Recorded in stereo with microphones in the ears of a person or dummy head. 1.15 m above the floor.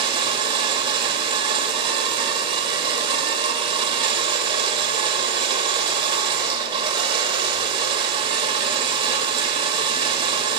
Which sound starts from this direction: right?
A machine running, at 0.0 s.